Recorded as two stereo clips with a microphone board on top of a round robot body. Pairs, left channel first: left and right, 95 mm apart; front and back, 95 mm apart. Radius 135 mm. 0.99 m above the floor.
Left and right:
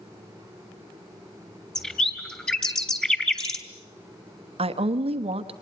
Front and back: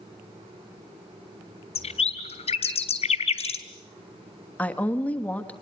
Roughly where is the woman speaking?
Right.